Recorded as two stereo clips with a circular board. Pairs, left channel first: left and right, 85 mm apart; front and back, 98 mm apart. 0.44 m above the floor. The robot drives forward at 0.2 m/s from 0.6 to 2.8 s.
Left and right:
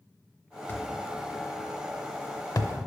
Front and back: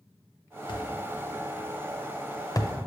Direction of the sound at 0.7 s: 30° left.